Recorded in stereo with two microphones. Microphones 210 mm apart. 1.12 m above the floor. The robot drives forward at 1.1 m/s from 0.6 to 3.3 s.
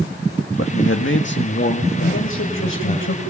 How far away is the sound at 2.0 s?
About 5.5 m.